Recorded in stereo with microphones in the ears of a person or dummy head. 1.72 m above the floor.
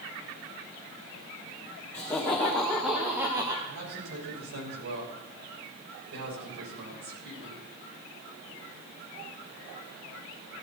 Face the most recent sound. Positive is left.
turn(degrees=-85)